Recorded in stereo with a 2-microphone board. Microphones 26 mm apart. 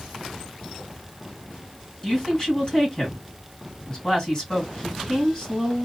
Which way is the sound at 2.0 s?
25° left (ahead or behind).